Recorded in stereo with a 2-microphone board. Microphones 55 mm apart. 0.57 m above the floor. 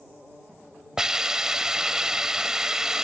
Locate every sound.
1.0 s a hiss: 10° right (ahead or behind)